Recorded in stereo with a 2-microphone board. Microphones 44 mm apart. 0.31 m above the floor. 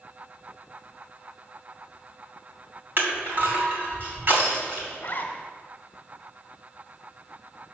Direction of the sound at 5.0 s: 40° left (ahead or behind).